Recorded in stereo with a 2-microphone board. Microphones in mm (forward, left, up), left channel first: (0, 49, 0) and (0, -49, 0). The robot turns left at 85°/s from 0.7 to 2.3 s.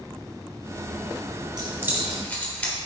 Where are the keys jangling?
50° right (ahead or behind), 3 m; by 2.7 s 15° left (ahead or behind), 3 m.